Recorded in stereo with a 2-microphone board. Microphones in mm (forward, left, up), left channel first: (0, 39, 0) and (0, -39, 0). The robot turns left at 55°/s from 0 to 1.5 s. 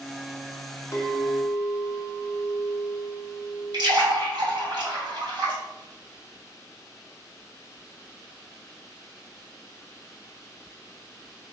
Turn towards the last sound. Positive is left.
turn(degrees=-65)  # may be behind; listen again after turning